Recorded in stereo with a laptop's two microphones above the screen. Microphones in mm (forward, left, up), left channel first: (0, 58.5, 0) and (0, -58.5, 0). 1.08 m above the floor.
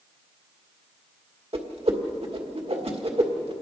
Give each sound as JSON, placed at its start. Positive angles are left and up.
{"t": 1.5, "sound": "a whoosh", "side_deg": -60, "distance_m": 1.7}